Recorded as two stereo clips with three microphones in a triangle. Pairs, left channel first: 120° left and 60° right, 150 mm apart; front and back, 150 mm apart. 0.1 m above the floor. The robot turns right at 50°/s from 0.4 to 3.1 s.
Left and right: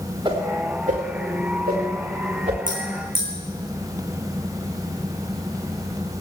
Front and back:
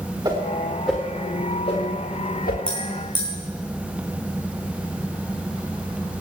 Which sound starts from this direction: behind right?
A whoosh, at 0.2 s.